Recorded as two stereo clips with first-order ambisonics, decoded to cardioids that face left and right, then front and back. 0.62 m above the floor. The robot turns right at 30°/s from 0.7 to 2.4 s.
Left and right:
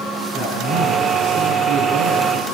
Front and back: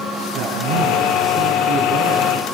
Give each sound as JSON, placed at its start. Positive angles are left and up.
{"t": 0.3, "sound": "a man speaking", "azimuth_deg": -160, "distance_m": 8.0}